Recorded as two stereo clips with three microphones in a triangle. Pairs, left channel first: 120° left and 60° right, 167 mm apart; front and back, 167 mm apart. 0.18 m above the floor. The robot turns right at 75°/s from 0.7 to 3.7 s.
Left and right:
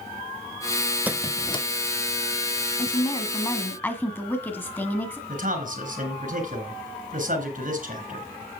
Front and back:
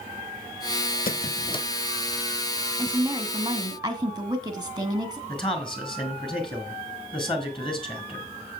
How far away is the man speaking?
About 2.5 m.